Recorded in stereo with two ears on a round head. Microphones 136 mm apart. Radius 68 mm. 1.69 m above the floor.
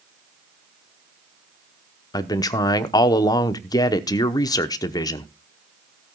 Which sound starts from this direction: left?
A man speaking, at 2.1 s.